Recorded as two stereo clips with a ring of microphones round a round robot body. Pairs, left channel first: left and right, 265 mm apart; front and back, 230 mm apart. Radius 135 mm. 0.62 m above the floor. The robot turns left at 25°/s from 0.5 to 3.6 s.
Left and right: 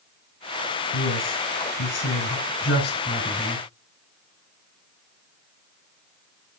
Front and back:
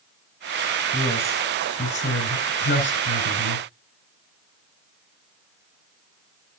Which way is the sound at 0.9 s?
85° left.